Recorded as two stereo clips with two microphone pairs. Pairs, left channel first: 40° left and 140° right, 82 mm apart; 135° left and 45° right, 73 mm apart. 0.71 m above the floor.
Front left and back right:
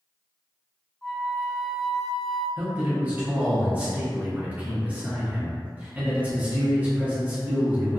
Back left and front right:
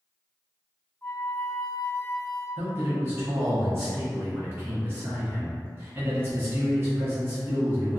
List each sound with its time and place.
1.0 s a flute: 110° left, 0.7 m
2.6 s a man speaking: 80° right, 0.7 m